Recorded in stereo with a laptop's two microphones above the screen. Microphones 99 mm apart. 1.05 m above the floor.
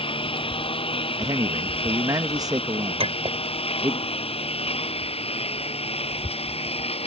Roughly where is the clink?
Right.